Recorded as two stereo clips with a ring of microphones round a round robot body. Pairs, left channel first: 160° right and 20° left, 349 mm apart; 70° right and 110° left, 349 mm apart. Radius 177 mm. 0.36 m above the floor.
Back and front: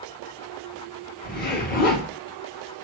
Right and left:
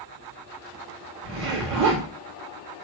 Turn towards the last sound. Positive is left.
turn(degrees=145)